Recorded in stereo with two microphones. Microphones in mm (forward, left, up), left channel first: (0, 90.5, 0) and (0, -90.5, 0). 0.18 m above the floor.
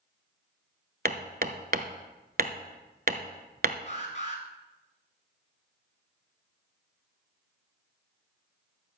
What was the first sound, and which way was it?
Hammering, 60° right (ahead or behind).